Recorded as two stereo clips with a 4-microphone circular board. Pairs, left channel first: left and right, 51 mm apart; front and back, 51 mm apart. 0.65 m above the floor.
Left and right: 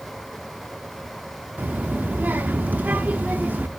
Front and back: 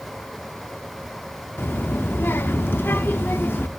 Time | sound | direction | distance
1.6 | a child speaking | 40° right | 0.7 m